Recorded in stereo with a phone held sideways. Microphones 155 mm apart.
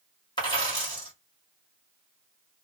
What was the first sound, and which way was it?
A dropped coin, 30° left (ahead or behind).